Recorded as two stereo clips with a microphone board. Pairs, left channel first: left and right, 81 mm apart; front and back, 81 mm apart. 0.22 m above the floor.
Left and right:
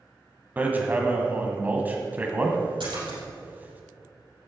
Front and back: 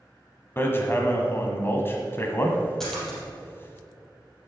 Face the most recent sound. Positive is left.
turn(degrees=-85)